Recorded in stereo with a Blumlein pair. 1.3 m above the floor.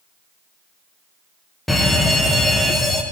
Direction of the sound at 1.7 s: 5° left.